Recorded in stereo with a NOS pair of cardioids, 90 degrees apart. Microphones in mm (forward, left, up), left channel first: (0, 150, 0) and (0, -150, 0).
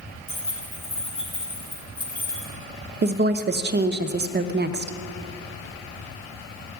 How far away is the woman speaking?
About 0.7 m.